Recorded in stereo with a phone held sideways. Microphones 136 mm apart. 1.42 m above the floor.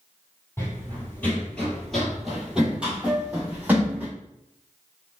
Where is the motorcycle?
I don't hear a motorcycle.